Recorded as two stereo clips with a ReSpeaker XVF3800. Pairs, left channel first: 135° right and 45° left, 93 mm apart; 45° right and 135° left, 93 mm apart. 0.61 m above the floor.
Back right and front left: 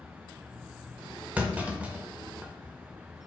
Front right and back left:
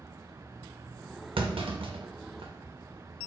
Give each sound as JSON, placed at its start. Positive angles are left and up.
{"t": 1.4, "sound": "a clunk", "azimuth_deg": 120, "distance_m": 0.6}